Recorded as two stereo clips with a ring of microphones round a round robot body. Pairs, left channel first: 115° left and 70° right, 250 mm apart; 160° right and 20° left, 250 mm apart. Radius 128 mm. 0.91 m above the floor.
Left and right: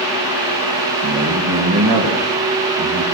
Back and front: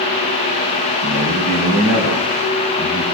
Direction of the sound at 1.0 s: 95° right.